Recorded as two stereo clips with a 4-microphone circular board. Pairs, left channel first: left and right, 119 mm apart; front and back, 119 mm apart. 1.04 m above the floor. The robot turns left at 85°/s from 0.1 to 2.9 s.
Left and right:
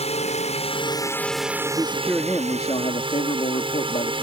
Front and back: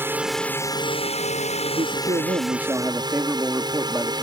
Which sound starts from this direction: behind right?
A man speaking, at 1.7 s.